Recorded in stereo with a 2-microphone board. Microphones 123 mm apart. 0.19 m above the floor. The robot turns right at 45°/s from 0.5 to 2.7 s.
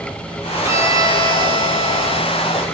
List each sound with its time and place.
0.6 s a violin: 150° right, 1.3 m; by 2.6 s 60° right, 1.3 m